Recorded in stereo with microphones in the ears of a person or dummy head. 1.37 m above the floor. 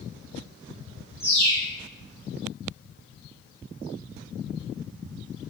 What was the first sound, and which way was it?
A bird, 15° left (ahead or behind).